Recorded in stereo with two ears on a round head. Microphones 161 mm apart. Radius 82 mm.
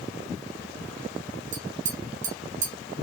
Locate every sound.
1.5 s tapping: 45° right (ahead or behind), 1.2 m